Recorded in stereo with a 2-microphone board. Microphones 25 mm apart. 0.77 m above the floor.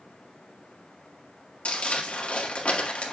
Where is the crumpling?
55° left (ahead or behind), 1.6 m.